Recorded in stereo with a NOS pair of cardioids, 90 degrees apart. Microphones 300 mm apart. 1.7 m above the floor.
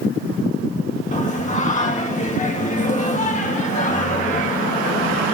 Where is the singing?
25° left, 1.5 m.